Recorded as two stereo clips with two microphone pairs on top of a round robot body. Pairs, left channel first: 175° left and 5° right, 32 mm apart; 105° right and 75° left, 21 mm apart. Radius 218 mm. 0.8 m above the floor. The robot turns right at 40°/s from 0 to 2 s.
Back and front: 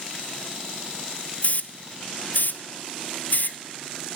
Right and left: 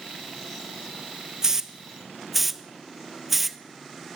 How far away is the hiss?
About 1.2 m.